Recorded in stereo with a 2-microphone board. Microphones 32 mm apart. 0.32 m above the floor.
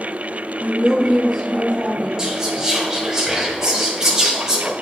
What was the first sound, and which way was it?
A woman speaking, 20° left (ahead or behind).